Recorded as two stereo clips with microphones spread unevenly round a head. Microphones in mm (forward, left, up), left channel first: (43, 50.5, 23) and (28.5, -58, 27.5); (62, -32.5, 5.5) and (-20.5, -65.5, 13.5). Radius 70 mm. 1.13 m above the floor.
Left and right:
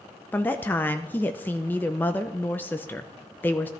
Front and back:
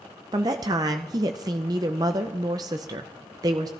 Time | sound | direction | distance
0.3 | a woman speaking | 150° left | 0.6 m